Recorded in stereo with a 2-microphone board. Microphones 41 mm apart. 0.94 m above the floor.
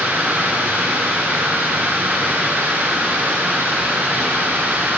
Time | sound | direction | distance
0.0 | running water | 55° right (ahead or behind) | 3 m